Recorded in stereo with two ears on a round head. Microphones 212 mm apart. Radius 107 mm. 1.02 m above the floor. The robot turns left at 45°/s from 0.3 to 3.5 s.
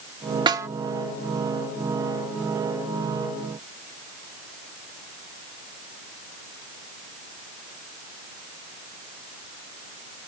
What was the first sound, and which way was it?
A snare drum, 20° right (ahead or behind).